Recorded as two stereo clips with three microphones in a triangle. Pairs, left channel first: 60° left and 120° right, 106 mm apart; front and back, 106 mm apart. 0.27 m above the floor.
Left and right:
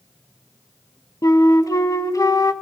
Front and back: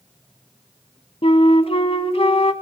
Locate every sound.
1.2 s a flute: 10° left, 0.8 m